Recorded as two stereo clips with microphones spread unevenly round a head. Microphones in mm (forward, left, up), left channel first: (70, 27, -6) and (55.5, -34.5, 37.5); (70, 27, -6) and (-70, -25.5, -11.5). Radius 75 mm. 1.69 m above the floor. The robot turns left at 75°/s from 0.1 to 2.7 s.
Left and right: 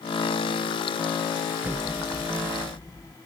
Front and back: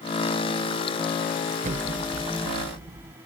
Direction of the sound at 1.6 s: 125° right.